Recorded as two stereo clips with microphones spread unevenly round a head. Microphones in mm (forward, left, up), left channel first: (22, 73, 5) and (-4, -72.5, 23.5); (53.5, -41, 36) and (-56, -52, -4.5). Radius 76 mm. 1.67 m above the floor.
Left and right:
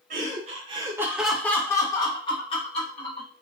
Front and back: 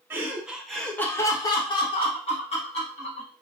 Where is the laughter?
90° right, 0.7 m; by 3.3 s 30° left, 1.4 m.